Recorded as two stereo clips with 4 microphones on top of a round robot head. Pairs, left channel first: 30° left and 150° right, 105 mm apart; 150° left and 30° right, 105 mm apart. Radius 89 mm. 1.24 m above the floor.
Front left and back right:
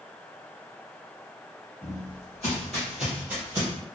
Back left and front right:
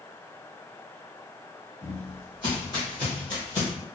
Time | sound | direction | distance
1.8 | footsteps | 95° left | 1.8 m